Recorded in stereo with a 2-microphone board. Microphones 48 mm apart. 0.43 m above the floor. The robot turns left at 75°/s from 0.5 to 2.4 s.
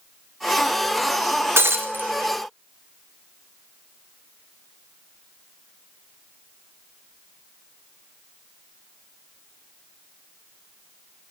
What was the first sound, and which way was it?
Breaking glass, 60° right (ahead or behind).